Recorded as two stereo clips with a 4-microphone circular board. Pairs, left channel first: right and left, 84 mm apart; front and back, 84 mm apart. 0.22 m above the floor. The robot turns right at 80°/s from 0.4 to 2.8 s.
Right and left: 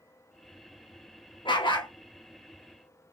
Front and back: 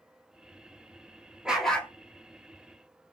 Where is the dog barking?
100° right, 1.2 m; by 1.9 s 65° right, 1.2 m.